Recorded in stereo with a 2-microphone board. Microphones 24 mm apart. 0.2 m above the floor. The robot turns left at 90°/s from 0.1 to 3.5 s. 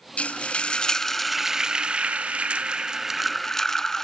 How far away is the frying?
About 0.6 m.